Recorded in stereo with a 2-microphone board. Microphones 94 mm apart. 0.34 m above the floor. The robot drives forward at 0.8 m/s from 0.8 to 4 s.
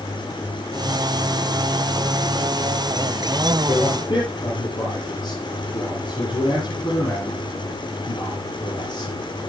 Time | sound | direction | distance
3.7 | a man speaking | 55° left (ahead or behind) | 8.5 m